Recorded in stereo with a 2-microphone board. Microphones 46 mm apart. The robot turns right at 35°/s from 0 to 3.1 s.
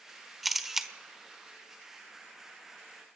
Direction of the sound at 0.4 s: Centre (ahead or behind).